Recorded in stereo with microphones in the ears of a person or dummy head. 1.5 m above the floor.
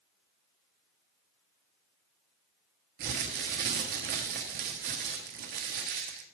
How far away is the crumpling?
About 1.2 m.